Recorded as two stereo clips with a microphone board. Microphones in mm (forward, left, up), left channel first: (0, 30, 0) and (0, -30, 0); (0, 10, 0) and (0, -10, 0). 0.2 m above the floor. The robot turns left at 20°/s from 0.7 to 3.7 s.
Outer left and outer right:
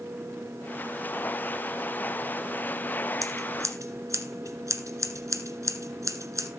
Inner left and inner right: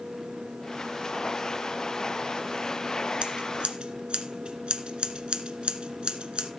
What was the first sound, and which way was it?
Scissors, 65° right (ahead or behind).